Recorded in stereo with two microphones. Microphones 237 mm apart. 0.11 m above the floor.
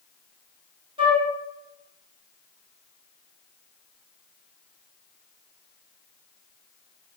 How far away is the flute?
About 1.0 m.